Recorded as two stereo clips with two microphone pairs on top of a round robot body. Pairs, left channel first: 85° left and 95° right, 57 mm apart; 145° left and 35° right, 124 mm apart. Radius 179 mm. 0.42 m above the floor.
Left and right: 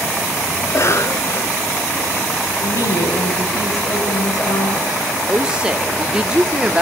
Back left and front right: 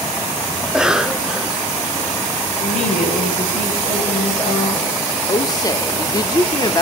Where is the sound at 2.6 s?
110° left, 9.5 m.